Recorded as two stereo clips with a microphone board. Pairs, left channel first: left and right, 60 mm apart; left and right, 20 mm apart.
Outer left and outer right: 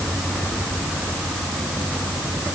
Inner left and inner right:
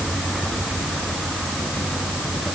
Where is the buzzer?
I don't hear a buzzer.